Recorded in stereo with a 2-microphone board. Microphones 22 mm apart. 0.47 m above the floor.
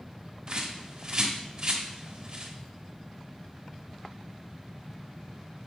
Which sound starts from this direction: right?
A bird, at 0.5 s.